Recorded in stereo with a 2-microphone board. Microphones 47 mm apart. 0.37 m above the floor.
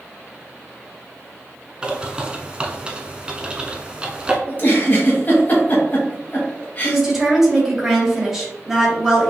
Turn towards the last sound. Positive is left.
turn(degrees=-10)  # may be behind; listen again after turning